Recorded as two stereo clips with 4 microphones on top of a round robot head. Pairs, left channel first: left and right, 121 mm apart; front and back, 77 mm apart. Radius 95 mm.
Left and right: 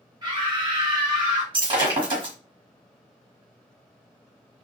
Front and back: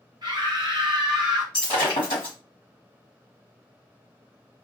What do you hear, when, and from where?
0.2 s a scream: 145° right, 1.0 m
1.5 s breaking glass: 40° right, 1.2 m